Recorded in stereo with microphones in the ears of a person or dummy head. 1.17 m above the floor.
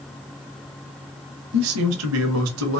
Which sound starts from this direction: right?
A man speaking, at 1.5 s.